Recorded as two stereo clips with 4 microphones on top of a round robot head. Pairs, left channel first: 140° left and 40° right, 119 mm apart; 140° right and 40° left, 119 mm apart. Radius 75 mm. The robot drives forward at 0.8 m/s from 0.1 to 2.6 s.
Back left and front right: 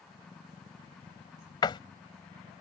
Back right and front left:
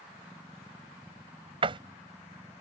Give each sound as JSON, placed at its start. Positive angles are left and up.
{"t": 1.6, "sound": "a door slam", "azimuth_deg": 85}